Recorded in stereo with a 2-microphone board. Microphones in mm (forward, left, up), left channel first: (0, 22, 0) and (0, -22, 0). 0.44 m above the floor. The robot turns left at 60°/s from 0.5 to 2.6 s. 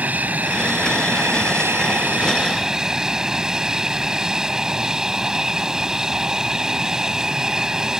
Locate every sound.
0.0 s an aircraft: 40° right; by 8.0 s 165° right